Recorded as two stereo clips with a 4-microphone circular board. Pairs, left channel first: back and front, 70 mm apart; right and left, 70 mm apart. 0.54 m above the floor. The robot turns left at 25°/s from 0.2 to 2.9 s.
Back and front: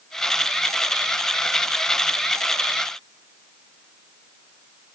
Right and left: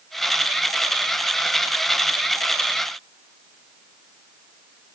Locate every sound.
Only background noise.